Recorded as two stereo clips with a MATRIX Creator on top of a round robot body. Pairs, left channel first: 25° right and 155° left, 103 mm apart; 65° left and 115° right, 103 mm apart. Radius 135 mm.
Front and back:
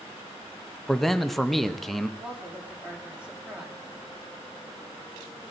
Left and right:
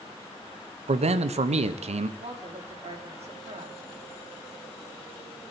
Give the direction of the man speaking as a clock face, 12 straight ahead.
4 o'clock.